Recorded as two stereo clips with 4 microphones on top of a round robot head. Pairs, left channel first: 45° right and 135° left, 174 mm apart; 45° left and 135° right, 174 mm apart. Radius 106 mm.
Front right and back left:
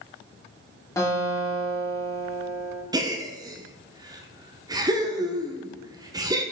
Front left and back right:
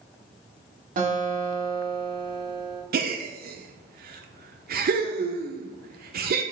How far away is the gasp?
About 0.9 m.